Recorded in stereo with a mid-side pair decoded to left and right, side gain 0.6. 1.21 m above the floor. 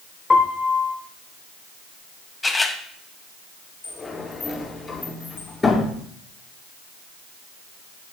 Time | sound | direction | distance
0.3 | a piano | 20° left | 3 m
2.4 | a camera shutter | 20° left | 4.5 m
3.8 | a sliding door | 25° left | 7.5 m